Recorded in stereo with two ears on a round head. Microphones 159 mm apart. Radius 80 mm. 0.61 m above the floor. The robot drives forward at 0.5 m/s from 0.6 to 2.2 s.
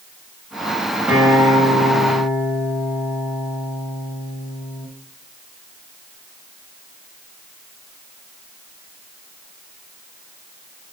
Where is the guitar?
5° right (ahead or behind), 3.5 m.